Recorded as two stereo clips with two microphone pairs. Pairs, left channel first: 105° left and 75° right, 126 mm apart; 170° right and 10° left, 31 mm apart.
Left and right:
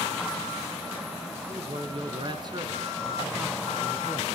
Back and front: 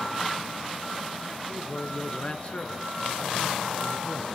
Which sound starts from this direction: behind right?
A man speaking, at 1.5 s.